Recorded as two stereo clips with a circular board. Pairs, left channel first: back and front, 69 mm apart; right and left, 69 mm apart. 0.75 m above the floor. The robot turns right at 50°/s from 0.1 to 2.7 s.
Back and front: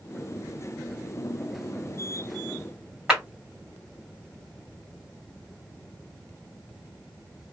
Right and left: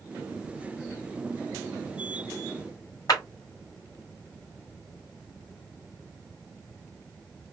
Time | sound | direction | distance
3.1 | a clap | 80° right | 1.6 m